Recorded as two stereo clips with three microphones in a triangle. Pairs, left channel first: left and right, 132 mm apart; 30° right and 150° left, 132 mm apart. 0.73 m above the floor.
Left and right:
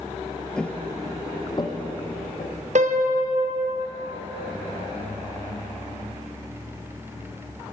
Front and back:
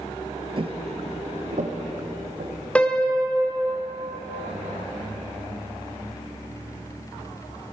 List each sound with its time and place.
0.6 s footsteps: 170° left, 0.9 m; by 2.6 s 135° left, 2.5 m
2.8 s a piano: 110° right, 0.7 m